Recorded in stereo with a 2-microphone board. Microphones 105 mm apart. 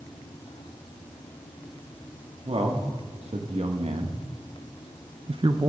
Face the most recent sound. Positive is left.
turn(degrees=-35)  # may be behind; listen again after turning